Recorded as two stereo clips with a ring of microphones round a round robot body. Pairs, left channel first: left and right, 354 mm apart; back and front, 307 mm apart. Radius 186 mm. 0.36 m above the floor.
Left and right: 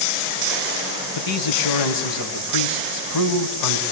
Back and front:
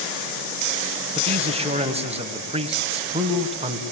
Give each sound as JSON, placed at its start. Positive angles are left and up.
{"t": 1.1, "sound": "a man speaking", "azimuth_deg": 70, "distance_m": 3.0}